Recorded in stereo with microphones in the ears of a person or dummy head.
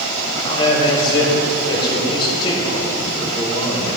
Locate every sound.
0.4 s a man speaking: 30° left (ahead or behind), 1.8 m